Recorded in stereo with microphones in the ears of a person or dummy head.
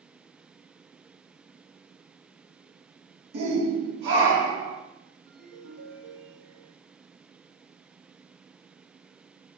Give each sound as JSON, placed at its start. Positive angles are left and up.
{"t": 3.3, "sound": "a shout", "side_deg": -55, "distance_m": 1.7}
{"t": 5.3, "sound": "a ringtone", "side_deg": -75, "distance_m": 1.2}